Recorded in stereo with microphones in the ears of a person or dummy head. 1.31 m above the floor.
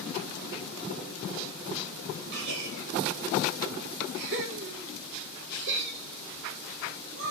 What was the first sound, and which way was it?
A gasp, 55° right (ahead or behind).